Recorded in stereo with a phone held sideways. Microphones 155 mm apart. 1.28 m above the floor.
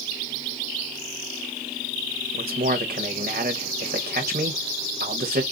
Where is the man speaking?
80° right, 1.5 m.